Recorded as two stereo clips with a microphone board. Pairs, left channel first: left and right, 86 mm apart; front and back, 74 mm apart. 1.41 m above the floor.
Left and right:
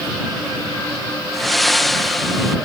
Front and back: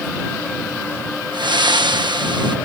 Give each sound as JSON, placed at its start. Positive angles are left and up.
{"t": 1.3, "sound": "breathing", "azimuth_deg": 180}